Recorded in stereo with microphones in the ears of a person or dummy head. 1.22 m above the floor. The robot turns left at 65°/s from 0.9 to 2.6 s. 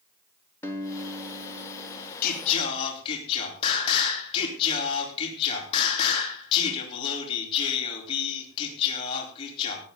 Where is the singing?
60° left (ahead or behind), 4.5 m; by 9.8 s 35° left (ahead or behind), 4.5 m.